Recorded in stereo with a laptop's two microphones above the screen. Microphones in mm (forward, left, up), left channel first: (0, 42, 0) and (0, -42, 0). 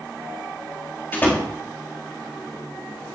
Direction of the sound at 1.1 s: 25° left (ahead or behind).